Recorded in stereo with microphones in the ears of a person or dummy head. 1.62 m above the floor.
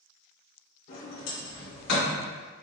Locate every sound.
0.9 s a sliding door: 65° left (ahead or behind), 1.3 m